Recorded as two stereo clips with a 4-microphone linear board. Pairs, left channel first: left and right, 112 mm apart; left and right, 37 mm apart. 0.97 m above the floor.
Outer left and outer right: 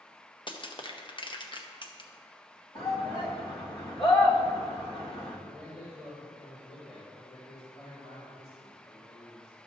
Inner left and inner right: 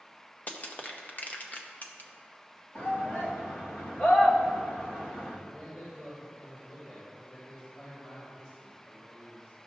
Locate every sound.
0.5 s crushing: 45° left (ahead or behind), 0.7 m
2.8 s a shout: 55° left (ahead or behind), 2 m
5.5 s a man speaking: 70° left (ahead or behind), 2.5 m